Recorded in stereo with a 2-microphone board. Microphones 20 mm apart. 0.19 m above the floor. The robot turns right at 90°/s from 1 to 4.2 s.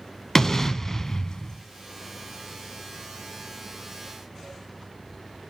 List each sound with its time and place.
0.3 s an explosion: 30° left, 0.5 m; by 1.6 s 90° left, 0.5 m